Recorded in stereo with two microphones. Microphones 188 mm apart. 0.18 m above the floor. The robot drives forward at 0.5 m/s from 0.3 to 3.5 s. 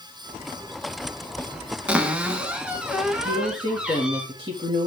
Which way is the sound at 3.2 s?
30° right (ahead or behind).